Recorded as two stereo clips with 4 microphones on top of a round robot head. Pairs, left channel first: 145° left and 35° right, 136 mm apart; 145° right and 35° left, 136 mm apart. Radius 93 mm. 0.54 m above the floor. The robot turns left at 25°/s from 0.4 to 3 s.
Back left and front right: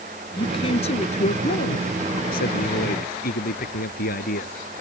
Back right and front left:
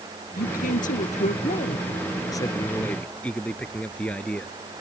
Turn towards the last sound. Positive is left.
turn(degrees=135)